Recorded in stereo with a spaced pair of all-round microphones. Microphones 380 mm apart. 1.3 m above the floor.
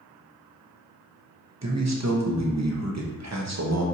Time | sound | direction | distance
1.6 | a man speaking | 45° right (ahead or behind) | 0.7 m